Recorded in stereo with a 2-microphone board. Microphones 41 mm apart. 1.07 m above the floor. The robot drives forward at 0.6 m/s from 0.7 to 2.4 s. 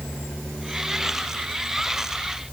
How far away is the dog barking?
I don't hear a dog barking.